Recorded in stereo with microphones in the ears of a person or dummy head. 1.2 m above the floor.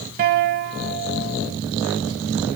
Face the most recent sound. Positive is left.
turn(degrees=-40)  # may be behind; listen again after turning